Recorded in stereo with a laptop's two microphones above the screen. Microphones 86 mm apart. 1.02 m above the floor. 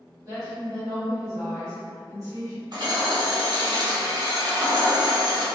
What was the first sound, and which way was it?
A woman speaking, 40° right (ahead or behind).